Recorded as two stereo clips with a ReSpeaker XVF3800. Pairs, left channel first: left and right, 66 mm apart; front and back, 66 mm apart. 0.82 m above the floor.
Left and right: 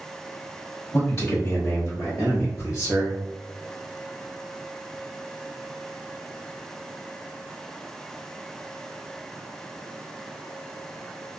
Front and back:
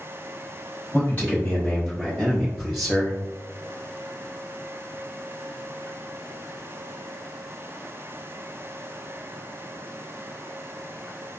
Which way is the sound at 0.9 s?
55° left.